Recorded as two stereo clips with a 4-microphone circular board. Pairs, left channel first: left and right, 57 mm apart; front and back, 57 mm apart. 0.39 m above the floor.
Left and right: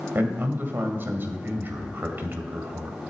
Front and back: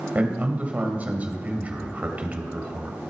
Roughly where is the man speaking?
Behind right.